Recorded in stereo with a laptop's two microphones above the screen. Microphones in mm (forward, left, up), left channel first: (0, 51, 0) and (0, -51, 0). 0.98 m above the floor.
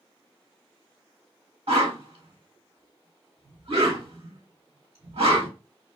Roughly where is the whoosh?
Right.